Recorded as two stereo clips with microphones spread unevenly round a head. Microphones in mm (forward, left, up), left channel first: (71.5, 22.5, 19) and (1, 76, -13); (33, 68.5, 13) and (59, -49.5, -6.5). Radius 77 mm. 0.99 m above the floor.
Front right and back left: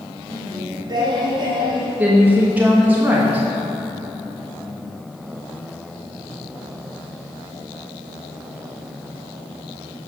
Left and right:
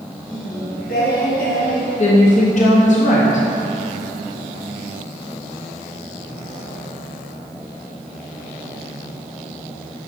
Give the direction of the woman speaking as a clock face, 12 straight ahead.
9 o'clock.